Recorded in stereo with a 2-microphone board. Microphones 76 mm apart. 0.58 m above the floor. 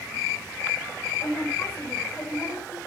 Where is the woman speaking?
30° left (ahead or behind), 6.5 m.